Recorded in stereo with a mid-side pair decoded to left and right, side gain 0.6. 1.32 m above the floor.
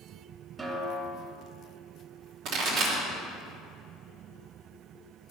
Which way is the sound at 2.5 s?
65° right.